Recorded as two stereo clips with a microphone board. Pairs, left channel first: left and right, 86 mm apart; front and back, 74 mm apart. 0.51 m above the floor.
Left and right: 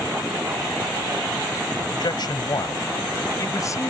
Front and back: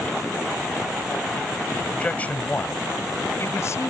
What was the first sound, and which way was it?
A man speaking, 70° left.